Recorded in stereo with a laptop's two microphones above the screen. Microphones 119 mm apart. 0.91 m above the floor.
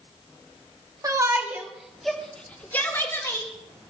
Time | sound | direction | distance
1.0 | a shout | 30° right (ahead or behind) | 2.5 m